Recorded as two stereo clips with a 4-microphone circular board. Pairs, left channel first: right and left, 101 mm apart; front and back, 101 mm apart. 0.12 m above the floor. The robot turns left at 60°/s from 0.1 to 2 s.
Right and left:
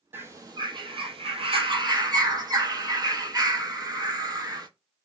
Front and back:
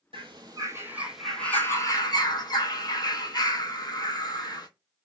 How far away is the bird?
About 0.5 m.